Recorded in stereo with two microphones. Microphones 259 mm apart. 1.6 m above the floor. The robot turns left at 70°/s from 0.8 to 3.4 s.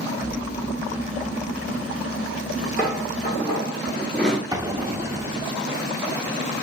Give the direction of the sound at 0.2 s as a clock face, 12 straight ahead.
3 o'clock.